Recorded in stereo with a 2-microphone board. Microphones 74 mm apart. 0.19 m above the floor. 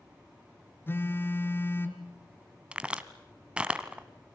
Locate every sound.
0.9 s a phone buzzing: 30° left (ahead or behind), 1.6 m
2.7 s a crack: 15° right (ahead or behind), 1.0 m